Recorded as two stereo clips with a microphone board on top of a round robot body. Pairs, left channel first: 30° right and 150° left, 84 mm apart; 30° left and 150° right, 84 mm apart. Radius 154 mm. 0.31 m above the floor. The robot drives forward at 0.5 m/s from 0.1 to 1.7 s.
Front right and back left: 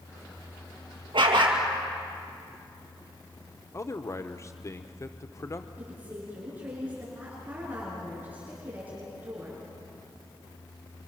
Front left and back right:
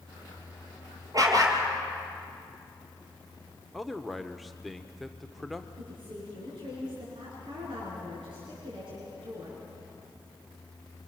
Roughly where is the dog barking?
Behind.